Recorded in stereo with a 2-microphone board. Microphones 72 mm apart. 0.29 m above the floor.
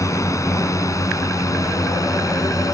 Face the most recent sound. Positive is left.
turn(degrees=50)  # may be behind; listen again after turning